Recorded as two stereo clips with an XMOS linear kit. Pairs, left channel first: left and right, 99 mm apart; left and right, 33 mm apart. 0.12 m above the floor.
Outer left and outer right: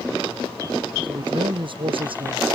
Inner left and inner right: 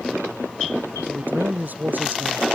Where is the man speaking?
55° right (ahead or behind); by 2.5 s 65° right (ahead or behind).